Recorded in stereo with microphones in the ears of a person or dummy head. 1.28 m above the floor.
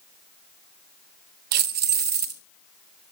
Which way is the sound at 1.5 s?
45° right (ahead or behind).